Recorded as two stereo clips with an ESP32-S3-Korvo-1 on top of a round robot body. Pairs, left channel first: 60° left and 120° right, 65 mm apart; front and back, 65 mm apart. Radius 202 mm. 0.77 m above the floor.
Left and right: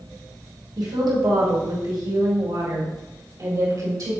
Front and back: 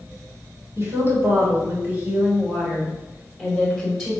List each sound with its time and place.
0.8 s a woman speaking: 130° right, 3 m; by 4.1 s 90° right, 3.5 m